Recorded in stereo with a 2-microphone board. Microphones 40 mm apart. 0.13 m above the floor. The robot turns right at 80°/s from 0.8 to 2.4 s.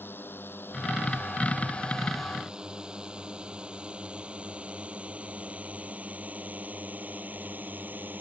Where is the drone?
60° left (ahead or behind); by 8.2 s 45° right (ahead or behind).